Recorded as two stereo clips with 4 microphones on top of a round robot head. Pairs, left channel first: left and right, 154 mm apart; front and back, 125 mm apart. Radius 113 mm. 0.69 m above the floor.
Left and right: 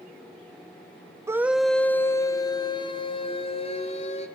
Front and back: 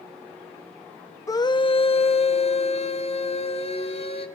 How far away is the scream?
About 0.7 m.